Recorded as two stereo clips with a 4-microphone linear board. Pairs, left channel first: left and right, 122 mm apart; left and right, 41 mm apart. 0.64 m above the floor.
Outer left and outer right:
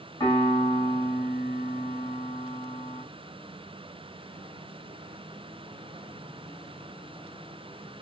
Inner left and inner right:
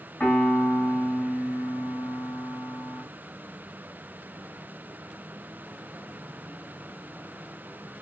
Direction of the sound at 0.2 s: 35° left (ahead or behind).